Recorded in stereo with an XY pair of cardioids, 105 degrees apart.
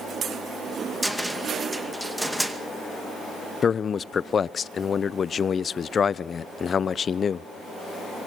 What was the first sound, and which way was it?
A cupboard door, 5° right.